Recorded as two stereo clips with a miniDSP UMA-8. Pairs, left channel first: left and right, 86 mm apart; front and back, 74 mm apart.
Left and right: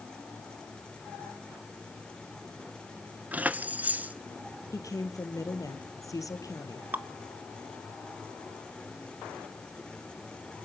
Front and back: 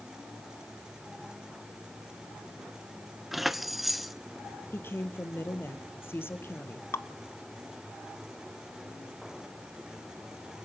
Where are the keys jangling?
95° right, 0.7 m.